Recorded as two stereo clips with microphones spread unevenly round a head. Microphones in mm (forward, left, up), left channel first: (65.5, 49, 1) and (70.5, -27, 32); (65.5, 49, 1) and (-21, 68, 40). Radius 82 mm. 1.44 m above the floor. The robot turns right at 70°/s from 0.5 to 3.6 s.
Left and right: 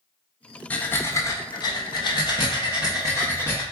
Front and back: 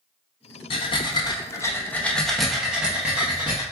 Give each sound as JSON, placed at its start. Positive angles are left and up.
{"t": 0.7, "sound": "breathing", "azimuth_deg": 0, "distance_m": 0.8}